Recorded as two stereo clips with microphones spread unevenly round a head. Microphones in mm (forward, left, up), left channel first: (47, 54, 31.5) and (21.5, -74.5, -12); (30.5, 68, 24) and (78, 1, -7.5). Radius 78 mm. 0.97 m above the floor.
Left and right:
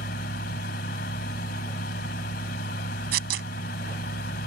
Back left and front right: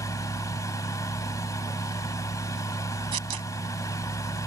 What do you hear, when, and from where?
0.0 s a fan: 80° left
3.1 s tearing paper: 110° right